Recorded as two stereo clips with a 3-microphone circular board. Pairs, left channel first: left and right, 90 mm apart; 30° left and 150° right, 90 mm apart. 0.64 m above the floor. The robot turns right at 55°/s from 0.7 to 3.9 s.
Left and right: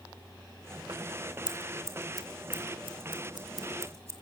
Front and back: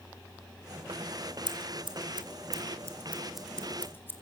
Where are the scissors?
170° right, 3 m; by 4.1 s 35° right, 3 m.